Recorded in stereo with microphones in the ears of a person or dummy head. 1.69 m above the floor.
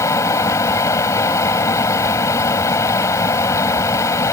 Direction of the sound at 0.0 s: 20° left (ahead or behind).